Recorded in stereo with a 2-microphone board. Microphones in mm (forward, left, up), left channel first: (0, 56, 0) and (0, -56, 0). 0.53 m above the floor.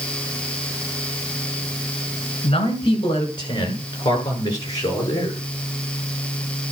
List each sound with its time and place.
2.4 s a man speaking: 50° left (ahead or behind), 6 m; by 5.4 s 30° left (ahead or behind), 9 m